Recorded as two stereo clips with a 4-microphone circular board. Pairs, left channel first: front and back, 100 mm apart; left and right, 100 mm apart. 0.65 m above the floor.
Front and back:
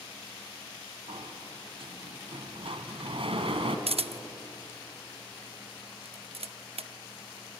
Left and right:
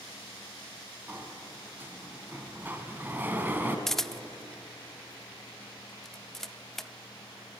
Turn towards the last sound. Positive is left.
turn(degrees=175)